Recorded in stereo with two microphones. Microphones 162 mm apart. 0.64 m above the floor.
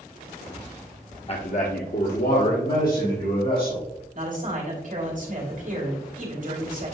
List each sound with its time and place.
1.3 s a man speaking: 35° left (ahead or behind), 0.7 m; by 3.9 s 65° left (ahead or behind), 3 m
4.1 s a man speaking: 55° right (ahead or behind), 2.5 m